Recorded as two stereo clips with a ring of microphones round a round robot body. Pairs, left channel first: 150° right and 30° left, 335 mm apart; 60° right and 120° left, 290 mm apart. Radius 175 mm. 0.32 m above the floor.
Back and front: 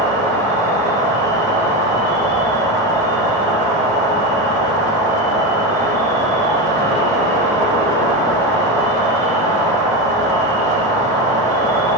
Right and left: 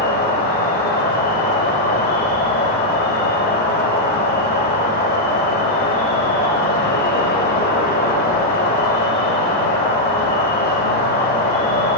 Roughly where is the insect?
Right.